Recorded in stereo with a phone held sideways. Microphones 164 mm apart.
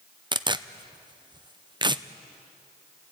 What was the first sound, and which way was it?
Tearing paper, 30° right (ahead or behind).